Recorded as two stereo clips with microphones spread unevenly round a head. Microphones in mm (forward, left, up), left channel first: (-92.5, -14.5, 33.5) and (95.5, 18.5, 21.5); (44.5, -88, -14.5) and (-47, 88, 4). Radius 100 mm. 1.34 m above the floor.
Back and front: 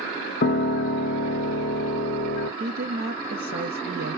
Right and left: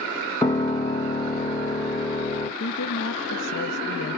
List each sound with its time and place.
0.4 s a piano: 140° right, 0.7 m
2.6 s a woman speaking: 30° right, 0.6 m